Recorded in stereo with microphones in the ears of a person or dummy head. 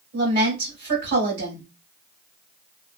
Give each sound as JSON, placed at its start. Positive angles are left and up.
{"t": 0.1, "sound": "a woman speaking", "side_deg": -65, "distance_m": 1.7}